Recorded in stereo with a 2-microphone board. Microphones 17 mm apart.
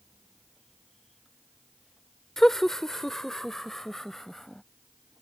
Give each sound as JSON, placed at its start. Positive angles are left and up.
{"t": 2.4, "sound": "laughter", "side_deg": 25}